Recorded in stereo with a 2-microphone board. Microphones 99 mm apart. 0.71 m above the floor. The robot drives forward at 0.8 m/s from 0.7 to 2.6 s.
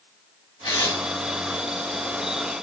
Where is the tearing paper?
55° left (ahead or behind), 2.5 m; by 1.0 s 50° left (ahead or behind), 3 m.